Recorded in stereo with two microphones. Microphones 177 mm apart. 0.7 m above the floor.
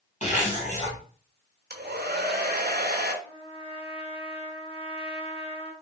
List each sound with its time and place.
0.2 s a zipper: 45° left (ahead or behind), 2 m
1.7 s a hair dryer: 65° right (ahead or behind), 0.9 m
3.2 s a trumpet: 35° left (ahead or behind), 1.0 m